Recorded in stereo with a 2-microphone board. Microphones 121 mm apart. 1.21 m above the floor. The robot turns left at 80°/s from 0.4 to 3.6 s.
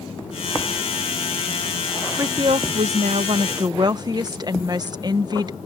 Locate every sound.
2.2 s a woman speaking: 30° right; by 5.6 s 140° right